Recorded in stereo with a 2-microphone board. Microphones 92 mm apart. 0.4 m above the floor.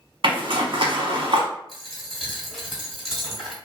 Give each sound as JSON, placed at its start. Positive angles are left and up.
{"t": 0.2, "sound": "a zipper", "side_deg": -80, "distance_m": 0.8}
{"t": 1.7, "sound": "a dropped coin", "side_deg": 0, "distance_m": 1.4}